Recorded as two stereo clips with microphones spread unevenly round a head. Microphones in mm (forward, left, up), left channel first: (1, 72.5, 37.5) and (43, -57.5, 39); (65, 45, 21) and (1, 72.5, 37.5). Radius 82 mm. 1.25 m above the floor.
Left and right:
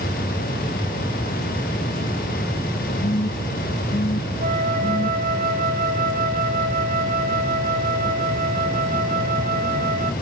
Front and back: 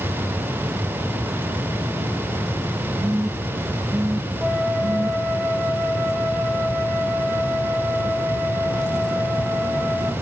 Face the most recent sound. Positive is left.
turn(degrees=-110)